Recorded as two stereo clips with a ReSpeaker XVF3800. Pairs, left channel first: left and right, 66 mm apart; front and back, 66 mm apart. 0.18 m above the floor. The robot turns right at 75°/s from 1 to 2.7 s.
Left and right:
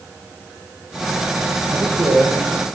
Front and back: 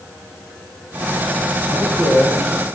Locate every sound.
1.7 s a man speaking: 150° right, 5.5 m; by 2.7 s 80° right, 5.5 m